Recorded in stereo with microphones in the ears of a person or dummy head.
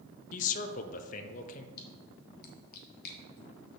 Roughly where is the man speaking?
Left.